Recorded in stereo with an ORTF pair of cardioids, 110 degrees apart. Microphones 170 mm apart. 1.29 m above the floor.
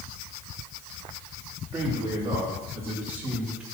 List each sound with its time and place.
1.7 s a man speaking: 20° right, 3 m; by 3.6 s 5° right, 2.5 m